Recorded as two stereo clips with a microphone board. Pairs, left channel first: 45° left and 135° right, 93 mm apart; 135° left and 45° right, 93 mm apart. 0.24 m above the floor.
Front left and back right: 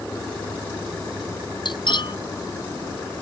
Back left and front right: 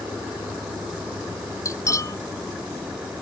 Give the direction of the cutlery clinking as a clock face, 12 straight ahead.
9 o'clock.